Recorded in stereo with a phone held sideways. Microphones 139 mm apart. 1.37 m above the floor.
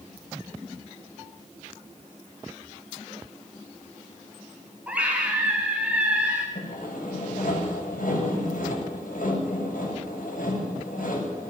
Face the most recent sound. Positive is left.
turn(degrees=90)